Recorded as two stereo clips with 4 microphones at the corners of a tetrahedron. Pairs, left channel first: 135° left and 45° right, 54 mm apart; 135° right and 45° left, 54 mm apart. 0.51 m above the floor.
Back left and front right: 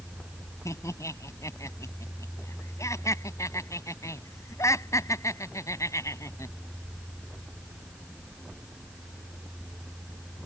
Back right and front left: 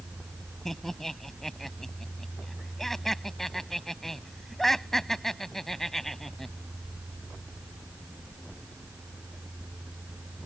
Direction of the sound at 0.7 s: 140° left.